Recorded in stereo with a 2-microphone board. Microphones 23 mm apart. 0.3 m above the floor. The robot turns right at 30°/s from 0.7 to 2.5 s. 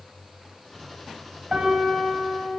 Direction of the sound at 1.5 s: 40° right (ahead or behind).